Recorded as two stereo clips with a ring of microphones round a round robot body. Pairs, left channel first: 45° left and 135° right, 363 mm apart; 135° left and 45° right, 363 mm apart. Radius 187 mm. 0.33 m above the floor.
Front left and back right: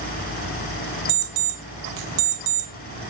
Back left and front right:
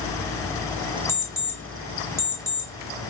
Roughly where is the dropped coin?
I don't hear a dropped coin.